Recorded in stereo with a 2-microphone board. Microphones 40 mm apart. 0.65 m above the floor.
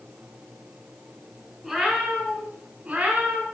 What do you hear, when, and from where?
1.6 s a cat meowing: 10° right (ahead or behind), 3 m; by 3.4 s 35° right (ahead or behind), 3 m